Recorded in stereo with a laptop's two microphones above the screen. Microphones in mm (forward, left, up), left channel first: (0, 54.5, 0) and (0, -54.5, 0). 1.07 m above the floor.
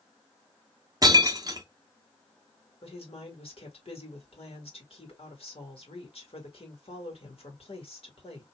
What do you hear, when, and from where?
1.0 s breaking glass: 35° right (ahead or behind), 0.6 m
2.8 s a woman speaking: 65° left (ahead or behind), 2 m